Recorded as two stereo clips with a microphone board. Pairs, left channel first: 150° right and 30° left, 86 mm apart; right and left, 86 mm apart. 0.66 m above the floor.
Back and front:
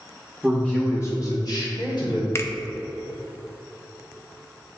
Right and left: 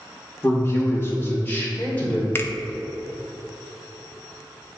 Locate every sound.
0.4 s a man speaking: 60° right, 1.0 m; by 2.2 s 160° right, 2 m
2.4 s a finger snap: 125° right, 0.6 m